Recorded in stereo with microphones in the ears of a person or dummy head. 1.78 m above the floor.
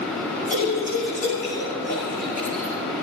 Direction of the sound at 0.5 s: 45° left (ahead or behind).